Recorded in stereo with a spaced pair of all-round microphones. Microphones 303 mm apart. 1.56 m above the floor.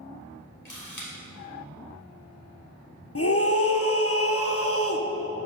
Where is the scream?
50° left (ahead or behind), 0.9 m.